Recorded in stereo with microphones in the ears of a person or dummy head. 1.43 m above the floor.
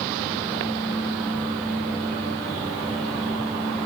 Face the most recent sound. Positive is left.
No sound to turn to.